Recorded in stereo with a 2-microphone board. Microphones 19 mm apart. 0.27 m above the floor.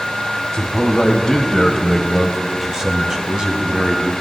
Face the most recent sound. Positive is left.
turn(degrees=-55)  # may be behind; listen again after turning